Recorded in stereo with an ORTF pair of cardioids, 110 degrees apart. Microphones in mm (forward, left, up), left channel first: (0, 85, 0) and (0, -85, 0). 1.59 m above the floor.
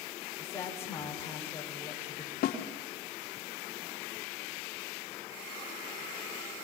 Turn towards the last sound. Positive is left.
turn(degrees=65)